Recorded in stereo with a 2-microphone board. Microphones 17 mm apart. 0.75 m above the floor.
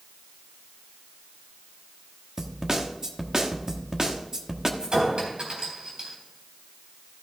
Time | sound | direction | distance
2.4 | a snare drum | 35° right (ahead or behind) | 1.2 m
4.8 | a clink | 60° right (ahead or behind) | 3.5 m